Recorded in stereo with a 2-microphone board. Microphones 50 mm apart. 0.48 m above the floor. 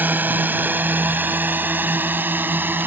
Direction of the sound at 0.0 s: 40° right (ahead or behind).